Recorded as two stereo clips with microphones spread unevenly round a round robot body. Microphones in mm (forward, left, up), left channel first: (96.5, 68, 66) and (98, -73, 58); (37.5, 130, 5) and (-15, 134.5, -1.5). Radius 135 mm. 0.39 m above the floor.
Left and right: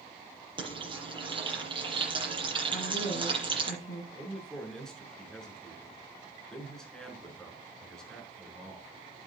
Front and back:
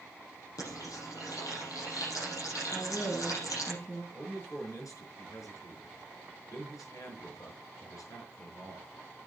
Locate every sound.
0.6 s frying: 35° right, 7.5 m
2.7 s a woman speaking: 55° left, 5 m
4.1 s a man speaking: 5° left, 6 m